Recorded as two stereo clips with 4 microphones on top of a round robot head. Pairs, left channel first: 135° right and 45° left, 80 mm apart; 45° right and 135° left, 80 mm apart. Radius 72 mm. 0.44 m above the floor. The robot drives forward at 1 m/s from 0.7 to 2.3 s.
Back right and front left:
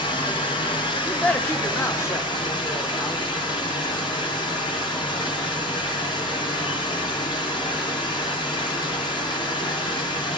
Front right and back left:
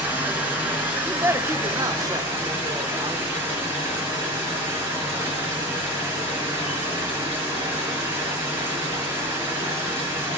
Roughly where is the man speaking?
Behind.